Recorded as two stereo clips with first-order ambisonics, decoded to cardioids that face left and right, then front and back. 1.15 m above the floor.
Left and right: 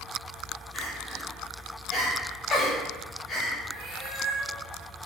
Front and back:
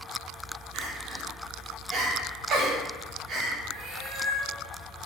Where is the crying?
150° left, 0.6 m.